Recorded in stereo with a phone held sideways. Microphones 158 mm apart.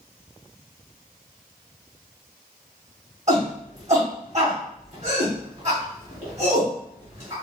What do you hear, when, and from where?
3.3 s a shout: 45° right (ahead or behind), 1.3 m